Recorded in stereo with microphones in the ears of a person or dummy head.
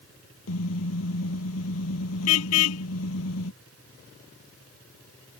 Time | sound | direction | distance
0.5 | a car horn | 85° left | ?